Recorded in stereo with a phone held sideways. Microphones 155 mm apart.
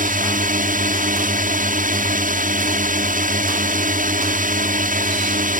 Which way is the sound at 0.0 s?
60° right (ahead or behind).